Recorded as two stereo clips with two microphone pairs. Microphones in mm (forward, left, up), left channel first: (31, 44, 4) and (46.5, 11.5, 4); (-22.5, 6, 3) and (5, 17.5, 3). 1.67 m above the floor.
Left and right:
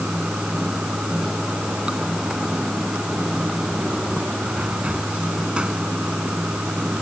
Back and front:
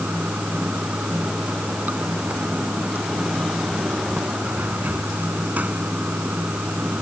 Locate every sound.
0.0 s running water: straight ahead